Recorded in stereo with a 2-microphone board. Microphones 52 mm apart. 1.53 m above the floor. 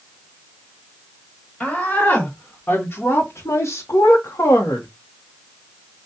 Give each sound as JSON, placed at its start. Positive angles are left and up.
{"t": 1.6, "sound": "a woman speaking", "side_deg": 20, "distance_m": 1.8}